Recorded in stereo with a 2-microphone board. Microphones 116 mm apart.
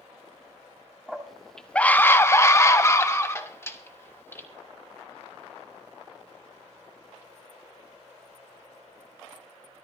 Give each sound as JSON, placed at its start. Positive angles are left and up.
{"t": 1.1, "sound": "a scream", "side_deg": -5, "distance_m": 1.5}